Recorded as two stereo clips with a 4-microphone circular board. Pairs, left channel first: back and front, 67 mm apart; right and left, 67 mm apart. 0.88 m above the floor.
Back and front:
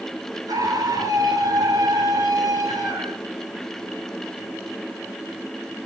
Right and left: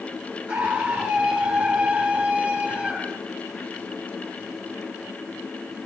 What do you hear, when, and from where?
0.5 s a scream: 10° left, 5 m; by 3.2 s 15° left, 6.5 m